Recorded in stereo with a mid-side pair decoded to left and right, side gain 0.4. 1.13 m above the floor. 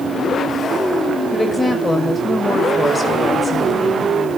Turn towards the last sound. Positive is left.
turn(degrees=20)